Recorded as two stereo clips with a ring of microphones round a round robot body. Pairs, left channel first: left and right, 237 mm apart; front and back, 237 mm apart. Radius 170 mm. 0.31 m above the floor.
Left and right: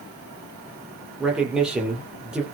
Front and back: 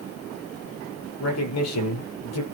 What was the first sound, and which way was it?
A man speaking, 5° right.